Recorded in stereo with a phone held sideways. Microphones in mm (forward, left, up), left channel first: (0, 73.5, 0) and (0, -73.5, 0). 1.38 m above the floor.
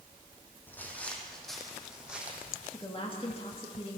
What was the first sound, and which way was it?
Footsteps, 10° left (ahead or behind).